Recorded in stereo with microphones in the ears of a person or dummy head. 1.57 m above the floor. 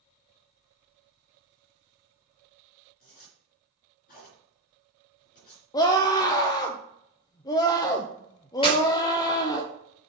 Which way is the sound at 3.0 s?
55° left (ahead or behind).